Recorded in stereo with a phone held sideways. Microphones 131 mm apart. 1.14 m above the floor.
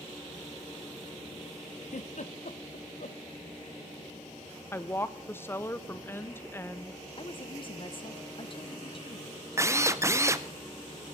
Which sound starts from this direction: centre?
A woman speaking, at 4.7 s.